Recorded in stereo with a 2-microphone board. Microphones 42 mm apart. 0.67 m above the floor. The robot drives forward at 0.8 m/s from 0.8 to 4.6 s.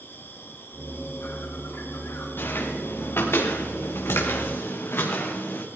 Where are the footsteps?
60° left (ahead or behind), 4 m; by 5.7 s 55° left (ahead or behind), 3 m.